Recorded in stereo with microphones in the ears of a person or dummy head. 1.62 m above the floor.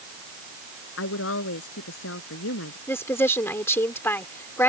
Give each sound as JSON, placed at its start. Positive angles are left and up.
{"t": 1.0, "sound": "a woman speaking", "side_deg": 80}
{"t": 2.9, "sound": "a woman speaking", "side_deg": 10}